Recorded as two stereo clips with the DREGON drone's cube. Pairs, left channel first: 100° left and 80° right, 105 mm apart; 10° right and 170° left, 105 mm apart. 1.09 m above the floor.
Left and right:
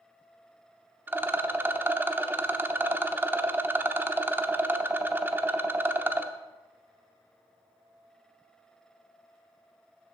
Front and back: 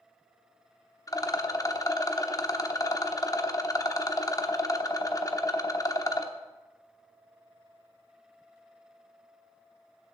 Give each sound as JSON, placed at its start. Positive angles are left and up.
{"t": 1.1, "sound": "a rattle", "azimuth_deg": -20, "distance_m": 0.7}